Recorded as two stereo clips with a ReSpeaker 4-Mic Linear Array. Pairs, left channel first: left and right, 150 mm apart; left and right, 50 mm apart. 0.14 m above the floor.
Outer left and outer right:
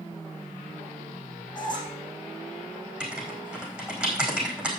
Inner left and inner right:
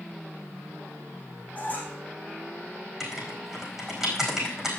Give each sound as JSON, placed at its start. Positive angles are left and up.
{"t": 1.6, "sound": "a squeak", "side_deg": 30, "distance_m": 4.0}
{"t": 3.0, "sound": "writing", "side_deg": -5, "distance_m": 4.5}